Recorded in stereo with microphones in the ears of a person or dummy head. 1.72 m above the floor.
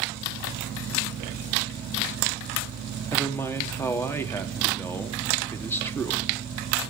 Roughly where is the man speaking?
Centre.